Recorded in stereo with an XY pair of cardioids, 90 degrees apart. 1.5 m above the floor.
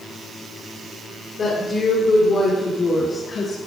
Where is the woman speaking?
45° left, 6.5 m.